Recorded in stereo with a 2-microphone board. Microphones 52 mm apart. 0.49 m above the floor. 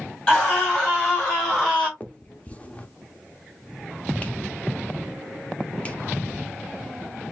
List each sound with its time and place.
0.3 s a scream: 25° left (ahead or behind), 3.5 m; by 1.9 s 20° left (ahead or behind), 2 m
2.0 s a finger snap: 25° left (ahead or behind), 0.6 m